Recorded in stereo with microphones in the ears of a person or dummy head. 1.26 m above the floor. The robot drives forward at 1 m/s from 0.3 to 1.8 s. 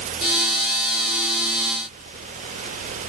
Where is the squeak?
No squeak in this recording.